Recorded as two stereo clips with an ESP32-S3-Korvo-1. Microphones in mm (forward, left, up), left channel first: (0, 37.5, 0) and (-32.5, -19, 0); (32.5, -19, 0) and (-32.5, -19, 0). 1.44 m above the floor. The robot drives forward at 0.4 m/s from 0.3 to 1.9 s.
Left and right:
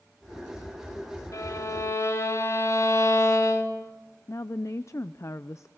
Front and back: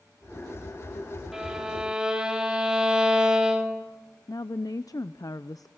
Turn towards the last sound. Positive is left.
turn(degrees=20)